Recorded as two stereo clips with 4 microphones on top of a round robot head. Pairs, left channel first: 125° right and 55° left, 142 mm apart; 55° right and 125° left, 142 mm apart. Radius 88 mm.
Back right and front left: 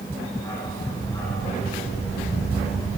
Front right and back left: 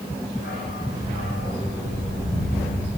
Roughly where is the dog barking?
Ahead right.